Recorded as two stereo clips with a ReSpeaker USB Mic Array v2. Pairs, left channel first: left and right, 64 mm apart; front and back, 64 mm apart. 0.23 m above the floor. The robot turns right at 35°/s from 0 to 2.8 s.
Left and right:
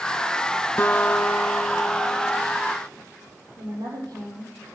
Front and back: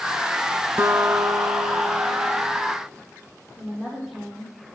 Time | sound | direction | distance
0.8 | a guitar | 135° left | 1.0 m
3.6 | a woman speaking | 95° right | 7 m